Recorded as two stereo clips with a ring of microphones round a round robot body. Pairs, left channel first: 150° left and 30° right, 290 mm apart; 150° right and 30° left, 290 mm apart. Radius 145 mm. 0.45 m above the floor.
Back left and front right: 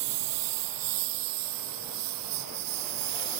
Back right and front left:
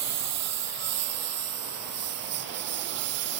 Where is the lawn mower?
10° right.